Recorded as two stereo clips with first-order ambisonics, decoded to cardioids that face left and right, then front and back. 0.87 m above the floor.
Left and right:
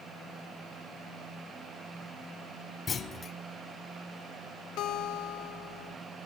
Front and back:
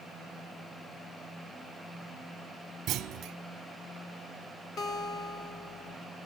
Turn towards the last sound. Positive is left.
turn(degrees=55)